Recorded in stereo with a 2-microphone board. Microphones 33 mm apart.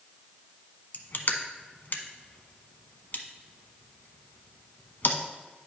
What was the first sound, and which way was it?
Crushing, 65° left (ahead or behind).